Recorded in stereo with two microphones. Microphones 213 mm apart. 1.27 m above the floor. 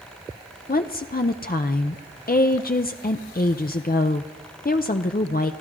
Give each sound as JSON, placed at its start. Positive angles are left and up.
{"t": 0.7, "sound": "a woman speaking", "side_deg": 45, "distance_m": 0.6}